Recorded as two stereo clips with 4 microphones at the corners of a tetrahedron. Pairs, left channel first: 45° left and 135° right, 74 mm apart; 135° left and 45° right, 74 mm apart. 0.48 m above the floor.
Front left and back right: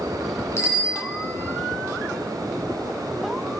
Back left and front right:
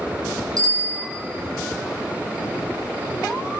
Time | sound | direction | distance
0.6 | a bicycle bell | 5° right | 3.5 m